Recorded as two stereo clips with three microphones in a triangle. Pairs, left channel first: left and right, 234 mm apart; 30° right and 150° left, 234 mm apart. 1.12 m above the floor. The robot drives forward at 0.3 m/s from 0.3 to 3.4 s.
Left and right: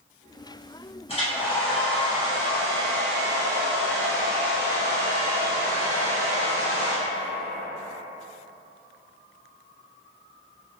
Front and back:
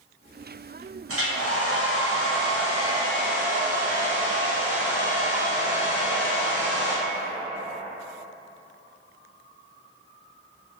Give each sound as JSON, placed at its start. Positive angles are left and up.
{"t": 1.1, "sound": "a hair dryer", "azimuth_deg": 150, "distance_m": 0.8}